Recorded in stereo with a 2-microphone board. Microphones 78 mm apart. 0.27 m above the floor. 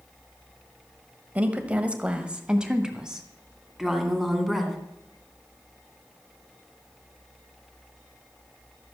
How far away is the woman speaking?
About 1.2 m.